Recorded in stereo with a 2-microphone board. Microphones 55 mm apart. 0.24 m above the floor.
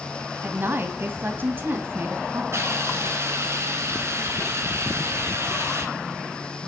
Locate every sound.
0.4 s a woman speaking: 40° right (ahead or behind), 1.2 m
2.5 s a hiss: 55° right (ahead or behind), 2.5 m